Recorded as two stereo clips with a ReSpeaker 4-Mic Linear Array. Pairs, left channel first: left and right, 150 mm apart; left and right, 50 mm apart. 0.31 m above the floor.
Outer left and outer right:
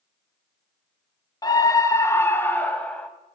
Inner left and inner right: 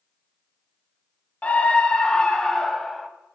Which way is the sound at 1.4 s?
25° left (ahead or behind).